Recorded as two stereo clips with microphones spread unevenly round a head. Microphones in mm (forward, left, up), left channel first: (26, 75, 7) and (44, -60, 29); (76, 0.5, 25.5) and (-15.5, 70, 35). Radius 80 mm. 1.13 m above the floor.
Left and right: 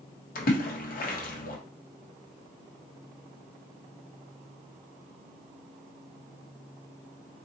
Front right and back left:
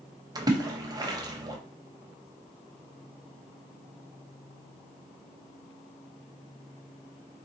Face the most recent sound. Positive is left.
turn(degrees=85)